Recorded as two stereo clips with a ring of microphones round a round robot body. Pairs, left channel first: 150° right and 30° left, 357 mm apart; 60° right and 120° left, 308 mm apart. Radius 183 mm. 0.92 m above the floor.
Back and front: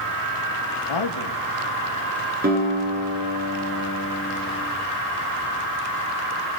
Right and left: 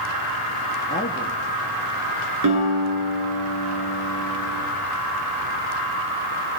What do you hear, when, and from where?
0.9 s a man speaking: 125° right, 1.3 m
2.4 s a guitar: 95° left, 8.5 m